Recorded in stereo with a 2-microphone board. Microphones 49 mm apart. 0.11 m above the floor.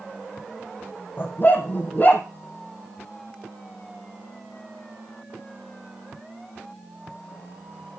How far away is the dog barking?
About 2.5 m.